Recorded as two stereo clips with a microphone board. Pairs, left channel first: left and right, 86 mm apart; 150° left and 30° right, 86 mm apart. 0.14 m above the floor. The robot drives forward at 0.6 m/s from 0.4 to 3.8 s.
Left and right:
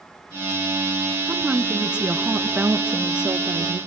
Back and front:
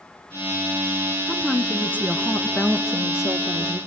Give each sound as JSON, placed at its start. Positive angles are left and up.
{"t": 1.3, "sound": "a woman speaking", "azimuth_deg": -130, "distance_m": 1.1}